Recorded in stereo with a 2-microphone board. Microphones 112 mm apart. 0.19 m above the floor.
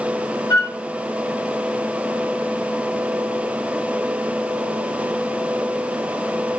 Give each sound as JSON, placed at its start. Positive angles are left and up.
{"t": 0.5, "sound": "a flute", "side_deg": 40, "distance_m": 1.3}